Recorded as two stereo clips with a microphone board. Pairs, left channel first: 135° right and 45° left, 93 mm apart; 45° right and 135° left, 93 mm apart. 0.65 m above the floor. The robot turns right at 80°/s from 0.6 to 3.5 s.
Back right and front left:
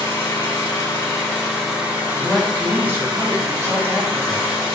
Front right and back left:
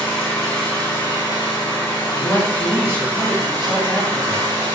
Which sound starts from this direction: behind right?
An engine running, at 0.0 s.